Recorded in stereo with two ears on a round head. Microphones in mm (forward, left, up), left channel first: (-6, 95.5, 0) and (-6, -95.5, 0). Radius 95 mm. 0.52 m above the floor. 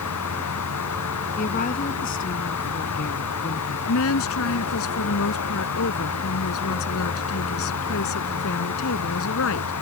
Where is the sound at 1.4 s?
40° left (ahead or behind).